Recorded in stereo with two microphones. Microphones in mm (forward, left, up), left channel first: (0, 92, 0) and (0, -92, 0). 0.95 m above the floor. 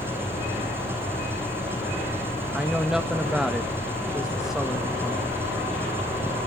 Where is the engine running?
10° right (ahead or behind), 9 m.